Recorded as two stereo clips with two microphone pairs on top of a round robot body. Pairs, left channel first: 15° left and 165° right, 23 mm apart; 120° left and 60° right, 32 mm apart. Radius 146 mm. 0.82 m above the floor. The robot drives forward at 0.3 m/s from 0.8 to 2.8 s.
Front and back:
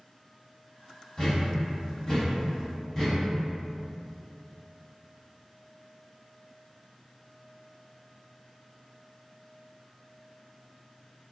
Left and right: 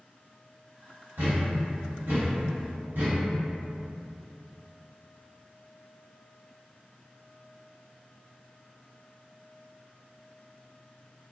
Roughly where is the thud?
Ahead right.